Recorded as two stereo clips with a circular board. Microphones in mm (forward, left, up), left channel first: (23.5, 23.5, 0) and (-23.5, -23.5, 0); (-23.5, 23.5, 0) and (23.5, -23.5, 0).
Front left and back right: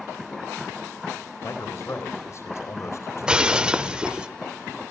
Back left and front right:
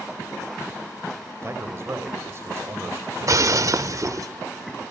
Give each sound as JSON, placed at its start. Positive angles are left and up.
{"t": 1.4, "sound": "a man speaking", "azimuth_deg": 0, "distance_m": 3.5}
{"t": 3.2, "sound": "breaking glass", "azimuth_deg": -60, "distance_m": 0.7}